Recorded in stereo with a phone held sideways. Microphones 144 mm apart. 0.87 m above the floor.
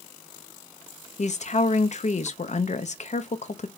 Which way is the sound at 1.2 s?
55° left (ahead or behind).